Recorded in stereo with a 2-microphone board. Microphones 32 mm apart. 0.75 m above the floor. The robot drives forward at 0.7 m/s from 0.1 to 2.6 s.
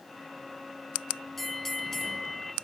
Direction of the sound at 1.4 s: 5° left (ahead or behind).